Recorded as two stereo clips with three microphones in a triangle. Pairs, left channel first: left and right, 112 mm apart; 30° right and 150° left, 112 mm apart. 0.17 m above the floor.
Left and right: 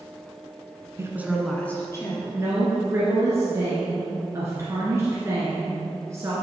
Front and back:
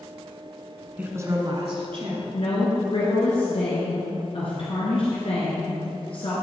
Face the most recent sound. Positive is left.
turn(degrees=-30)